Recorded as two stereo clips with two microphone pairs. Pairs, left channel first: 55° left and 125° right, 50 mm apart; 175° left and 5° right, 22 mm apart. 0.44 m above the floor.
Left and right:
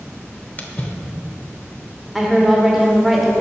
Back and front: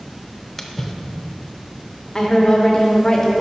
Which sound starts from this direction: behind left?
A woman speaking, at 2.1 s.